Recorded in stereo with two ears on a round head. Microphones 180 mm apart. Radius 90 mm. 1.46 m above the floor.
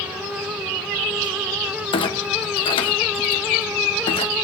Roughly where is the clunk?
Left.